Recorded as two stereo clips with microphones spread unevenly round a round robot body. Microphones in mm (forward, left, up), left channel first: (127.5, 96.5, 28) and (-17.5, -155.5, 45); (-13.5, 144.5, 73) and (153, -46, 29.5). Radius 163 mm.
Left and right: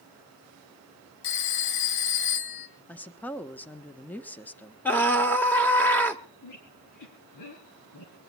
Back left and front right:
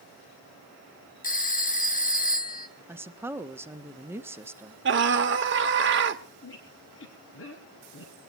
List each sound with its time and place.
1.2 s a phone ringing: 70° left, 1.7 m
2.9 s a woman speaking: 10° right, 1.2 m
4.8 s a scream: 20° right, 1.3 m
6.4 s a squeak: 100° left, 4.5 m